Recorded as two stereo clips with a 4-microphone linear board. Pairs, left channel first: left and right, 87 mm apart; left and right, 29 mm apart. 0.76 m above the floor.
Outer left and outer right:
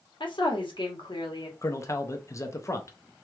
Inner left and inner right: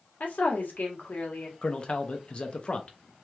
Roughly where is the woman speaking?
Left.